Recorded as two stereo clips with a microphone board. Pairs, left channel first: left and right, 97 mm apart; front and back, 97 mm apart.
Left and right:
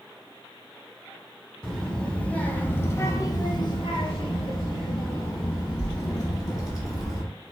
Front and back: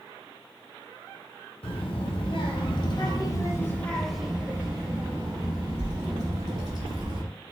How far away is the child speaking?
About 1.6 m.